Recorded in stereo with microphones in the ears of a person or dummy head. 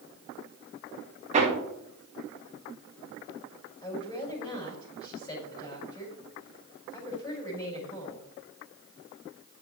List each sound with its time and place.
1.3 s hammering: 30° right (ahead or behind), 1.8 m
3.8 s a woman speaking: 20° left (ahead or behind), 5 m